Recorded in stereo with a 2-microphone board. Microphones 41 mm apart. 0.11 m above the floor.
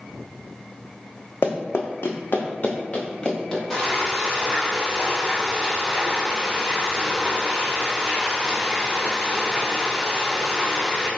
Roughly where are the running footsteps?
Left.